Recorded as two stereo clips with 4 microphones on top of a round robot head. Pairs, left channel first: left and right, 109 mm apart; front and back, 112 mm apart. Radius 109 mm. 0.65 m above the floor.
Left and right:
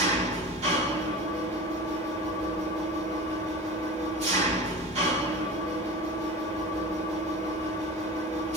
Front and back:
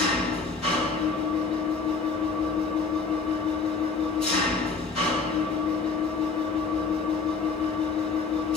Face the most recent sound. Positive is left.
turn(degrees=-85)